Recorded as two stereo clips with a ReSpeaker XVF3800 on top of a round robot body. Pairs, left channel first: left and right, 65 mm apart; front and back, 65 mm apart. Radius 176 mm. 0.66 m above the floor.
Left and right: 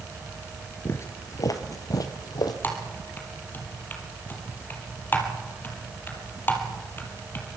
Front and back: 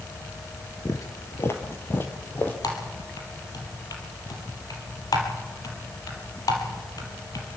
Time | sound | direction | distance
0.8 | footsteps | 40° left | 0.7 m
2.6 | typing on a keyboard | 30° left | 4 m